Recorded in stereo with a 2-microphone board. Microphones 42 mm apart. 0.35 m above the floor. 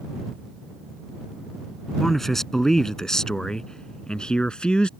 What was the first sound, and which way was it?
A man speaking, 5° left (ahead or behind).